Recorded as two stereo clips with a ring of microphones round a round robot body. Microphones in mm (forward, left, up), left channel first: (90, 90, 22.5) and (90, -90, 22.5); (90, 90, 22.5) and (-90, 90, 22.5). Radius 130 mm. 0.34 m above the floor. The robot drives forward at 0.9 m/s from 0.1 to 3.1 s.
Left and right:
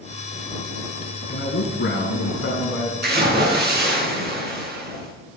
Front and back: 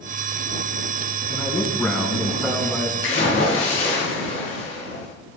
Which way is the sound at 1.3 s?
80° left.